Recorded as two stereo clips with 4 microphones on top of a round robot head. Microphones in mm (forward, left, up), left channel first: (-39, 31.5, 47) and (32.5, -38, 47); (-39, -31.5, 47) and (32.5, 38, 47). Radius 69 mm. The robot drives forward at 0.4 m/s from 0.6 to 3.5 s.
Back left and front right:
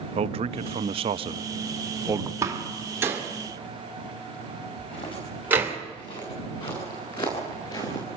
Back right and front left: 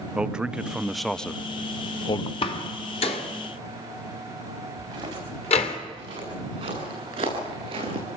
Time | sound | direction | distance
0.1 | a man speaking | 35° right | 0.8 m
2.4 | a door slam | 105° right | 2 m
4.8 | footsteps | 95° left | 7.5 m